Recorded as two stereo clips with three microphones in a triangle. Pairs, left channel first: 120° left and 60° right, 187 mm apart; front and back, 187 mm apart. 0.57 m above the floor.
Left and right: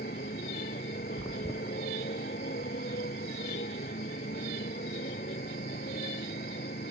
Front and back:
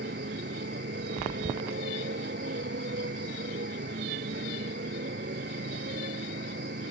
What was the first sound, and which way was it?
A motorcycle, 155° left.